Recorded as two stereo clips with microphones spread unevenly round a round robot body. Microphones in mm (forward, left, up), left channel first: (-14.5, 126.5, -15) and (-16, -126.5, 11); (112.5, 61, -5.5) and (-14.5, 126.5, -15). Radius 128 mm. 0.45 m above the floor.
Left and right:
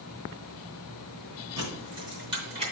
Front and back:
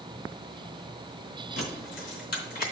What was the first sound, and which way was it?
Keys jangling, 15° right.